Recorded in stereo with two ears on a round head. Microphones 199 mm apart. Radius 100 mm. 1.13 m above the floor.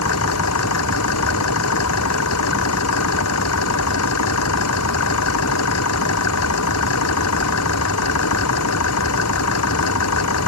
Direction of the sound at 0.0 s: 80° left.